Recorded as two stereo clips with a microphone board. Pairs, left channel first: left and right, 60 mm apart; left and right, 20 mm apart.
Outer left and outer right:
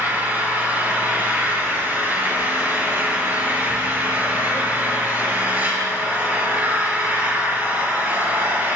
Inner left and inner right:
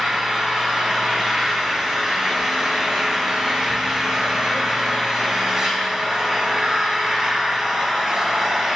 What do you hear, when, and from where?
0.0 s an engine running: 35° right (ahead or behind), 7 m